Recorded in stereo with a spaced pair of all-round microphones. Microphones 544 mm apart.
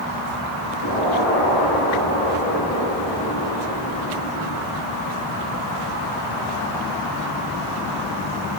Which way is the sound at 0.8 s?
70° left (ahead or behind).